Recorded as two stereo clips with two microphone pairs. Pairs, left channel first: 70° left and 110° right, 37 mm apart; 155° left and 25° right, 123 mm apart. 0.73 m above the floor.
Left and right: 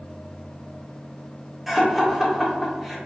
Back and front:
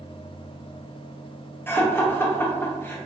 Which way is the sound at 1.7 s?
Straight behind.